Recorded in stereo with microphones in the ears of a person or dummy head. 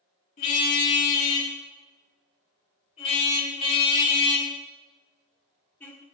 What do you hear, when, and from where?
0.4 s a car horn: 45° left (ahead or behind), 6 m; by 6.0 s 10° left (ahead or behind), 2.5 m